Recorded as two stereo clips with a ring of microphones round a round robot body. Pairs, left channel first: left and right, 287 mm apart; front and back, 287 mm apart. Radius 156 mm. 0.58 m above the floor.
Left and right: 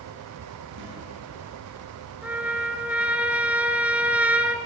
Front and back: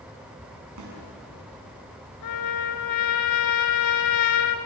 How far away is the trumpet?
About 1.4 m.